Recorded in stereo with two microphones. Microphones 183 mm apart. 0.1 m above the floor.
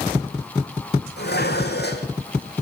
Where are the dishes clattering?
70° left (ahead or behind), 3 m.